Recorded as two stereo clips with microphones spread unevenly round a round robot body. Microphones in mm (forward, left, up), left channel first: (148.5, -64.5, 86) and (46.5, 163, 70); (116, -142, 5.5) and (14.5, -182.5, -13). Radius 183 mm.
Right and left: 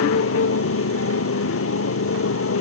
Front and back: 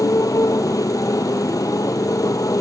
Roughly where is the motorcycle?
Ahead right.